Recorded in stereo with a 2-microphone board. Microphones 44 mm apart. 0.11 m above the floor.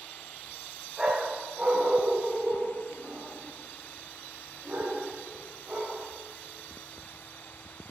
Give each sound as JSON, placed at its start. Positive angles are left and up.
{"t": 1.0, "sound": "a dog barking", "side_deg": -10, "distance_m": 3.0}